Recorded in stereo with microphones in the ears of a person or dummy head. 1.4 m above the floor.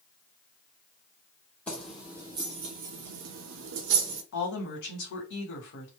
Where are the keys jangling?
10° left (ahead or behind), 0.9 m; by 4.2 s 70° right (ahead or behind), 1.2 m.